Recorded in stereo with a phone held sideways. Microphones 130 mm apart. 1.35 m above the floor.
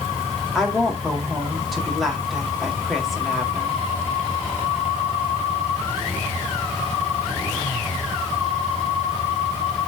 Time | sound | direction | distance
0.6 | a woman speaking | centre (ahead or behind) | 3.5 m